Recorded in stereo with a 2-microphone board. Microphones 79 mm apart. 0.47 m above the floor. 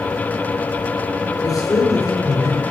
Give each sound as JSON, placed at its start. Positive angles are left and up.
{"t": 1.4, "sound": "a man speaking", "side_deg": 50, "distance_m": 8.0}